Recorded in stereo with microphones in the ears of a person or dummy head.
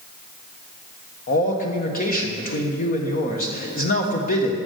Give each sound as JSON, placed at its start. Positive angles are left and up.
{"t": 1.3, "sound": "a man speaking", "side_deg": 35, "distance_m": 1.2}